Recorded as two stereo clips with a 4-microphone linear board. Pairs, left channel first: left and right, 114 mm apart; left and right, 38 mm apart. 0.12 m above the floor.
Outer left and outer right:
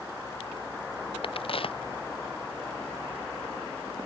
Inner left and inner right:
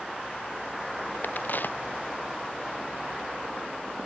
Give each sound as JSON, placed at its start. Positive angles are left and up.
{"t": 1.2, "sound": "a crack", "side_deg": 50}